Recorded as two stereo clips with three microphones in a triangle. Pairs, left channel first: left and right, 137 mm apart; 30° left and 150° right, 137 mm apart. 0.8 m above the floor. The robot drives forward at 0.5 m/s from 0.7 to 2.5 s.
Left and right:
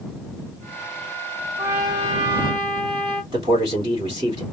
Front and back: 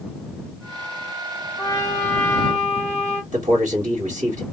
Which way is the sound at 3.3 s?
145° right.